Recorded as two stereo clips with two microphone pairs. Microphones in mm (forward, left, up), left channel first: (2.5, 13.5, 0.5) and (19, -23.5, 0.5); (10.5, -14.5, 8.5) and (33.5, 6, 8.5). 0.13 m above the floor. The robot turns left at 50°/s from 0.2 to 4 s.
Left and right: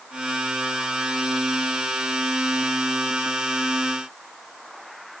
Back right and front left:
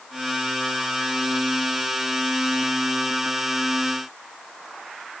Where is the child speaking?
I don't hear a child speaking.